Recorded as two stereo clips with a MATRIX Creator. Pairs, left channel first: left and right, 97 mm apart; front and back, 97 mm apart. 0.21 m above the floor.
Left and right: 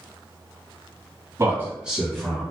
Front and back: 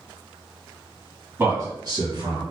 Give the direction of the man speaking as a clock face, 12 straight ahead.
4 o'clock.